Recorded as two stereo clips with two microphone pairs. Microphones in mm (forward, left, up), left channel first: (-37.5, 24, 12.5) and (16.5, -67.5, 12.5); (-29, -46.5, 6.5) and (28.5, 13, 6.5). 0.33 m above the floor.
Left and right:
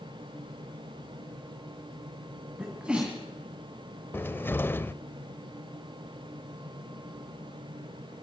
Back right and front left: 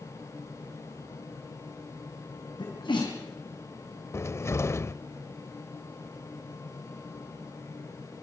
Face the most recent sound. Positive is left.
turn(degrees=-175)